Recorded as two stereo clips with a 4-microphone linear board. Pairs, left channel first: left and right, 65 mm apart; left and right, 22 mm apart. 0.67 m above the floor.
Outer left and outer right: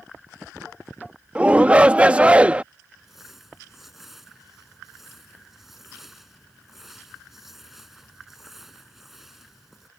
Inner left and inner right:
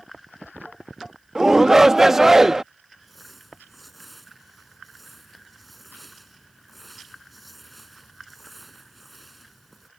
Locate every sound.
1.4 s a shout: 20° right (ahead or behind)
3.0 s crumpling: 5° right (ahead or behind)